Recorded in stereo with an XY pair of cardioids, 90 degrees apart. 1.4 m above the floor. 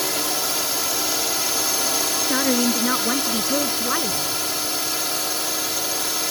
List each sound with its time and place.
0.0 s a drone: 10° left
2.3 s a woman speaking: 25° left